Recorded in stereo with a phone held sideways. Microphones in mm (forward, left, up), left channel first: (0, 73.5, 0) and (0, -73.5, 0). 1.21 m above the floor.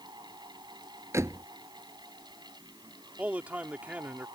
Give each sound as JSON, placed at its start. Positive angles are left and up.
{"t": 0.0, "sound": "a fan", "side_deg": -30}
{"t": 1.1, "sound": "a door slam", "side_deg": -20}
{"t": 3.2, "sound": "a man speaking", "side_deg": -10}